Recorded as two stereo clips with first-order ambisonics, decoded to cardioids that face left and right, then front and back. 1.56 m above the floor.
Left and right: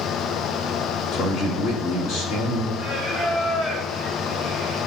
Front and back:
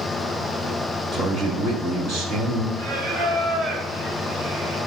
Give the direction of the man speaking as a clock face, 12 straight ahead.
8 o'clock.